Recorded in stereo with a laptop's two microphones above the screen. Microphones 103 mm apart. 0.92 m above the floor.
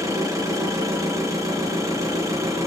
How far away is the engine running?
About 7.5 m.